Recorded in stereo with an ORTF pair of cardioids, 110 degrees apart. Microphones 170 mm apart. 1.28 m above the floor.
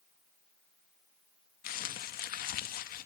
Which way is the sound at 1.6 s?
60° left.